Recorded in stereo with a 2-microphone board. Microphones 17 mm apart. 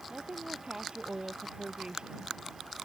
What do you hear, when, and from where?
0.1 s a woman speaking: 50° right (ahead or behind)